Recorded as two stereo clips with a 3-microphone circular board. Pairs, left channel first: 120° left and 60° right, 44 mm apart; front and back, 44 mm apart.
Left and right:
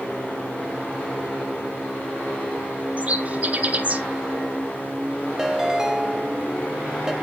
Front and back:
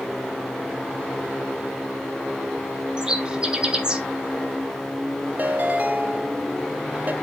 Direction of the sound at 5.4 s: 135° right.